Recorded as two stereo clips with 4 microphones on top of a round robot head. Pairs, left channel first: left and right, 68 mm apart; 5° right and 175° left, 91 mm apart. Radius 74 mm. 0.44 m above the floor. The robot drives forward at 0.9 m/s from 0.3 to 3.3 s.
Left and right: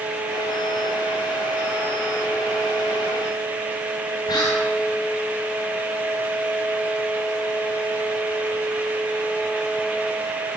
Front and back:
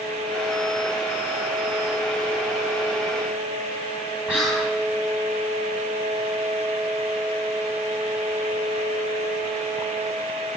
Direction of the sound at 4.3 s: 100° left.